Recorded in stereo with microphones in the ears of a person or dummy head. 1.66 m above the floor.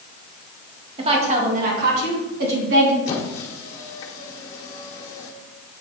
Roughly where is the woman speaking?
Right.